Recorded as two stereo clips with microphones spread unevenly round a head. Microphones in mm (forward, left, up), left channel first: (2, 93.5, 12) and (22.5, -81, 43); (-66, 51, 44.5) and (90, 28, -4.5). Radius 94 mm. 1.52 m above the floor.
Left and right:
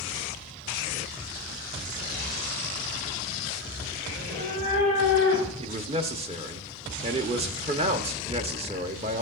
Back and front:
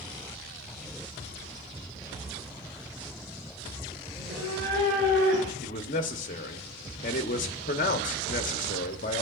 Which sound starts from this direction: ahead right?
A cat meowing, at 4.1 s.